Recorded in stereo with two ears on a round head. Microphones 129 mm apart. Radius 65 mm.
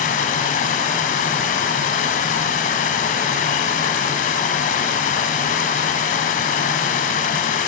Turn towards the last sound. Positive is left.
turn(degrees=60)  # may be behind; listen again after turning